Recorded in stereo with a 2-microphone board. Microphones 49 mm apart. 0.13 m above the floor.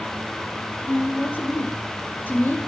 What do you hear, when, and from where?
0.8 s a woman speaking: 40° left (ahead or behind), 2.5 m